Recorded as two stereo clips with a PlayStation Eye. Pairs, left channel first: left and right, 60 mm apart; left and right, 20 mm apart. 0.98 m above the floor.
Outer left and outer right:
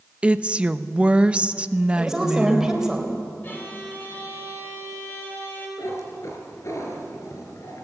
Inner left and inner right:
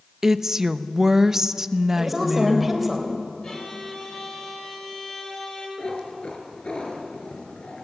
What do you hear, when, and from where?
0.2 s a woman speaking: 20° right (ahead or behind), 0.7 m
2.0 s a woman speaking: 5° right (ahead or behind), 3.5 m
3.4 s a violin: 35° left (ahead or behind), 4.5 m
5.8 s a cat meowing: 55° left (ahead or behind), 3.5 m